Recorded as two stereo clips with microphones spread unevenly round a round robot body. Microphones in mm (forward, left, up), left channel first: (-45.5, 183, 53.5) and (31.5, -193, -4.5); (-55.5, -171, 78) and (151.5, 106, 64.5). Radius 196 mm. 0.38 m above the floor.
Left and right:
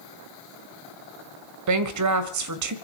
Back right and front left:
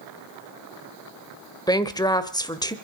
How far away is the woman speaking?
About 1.6 m.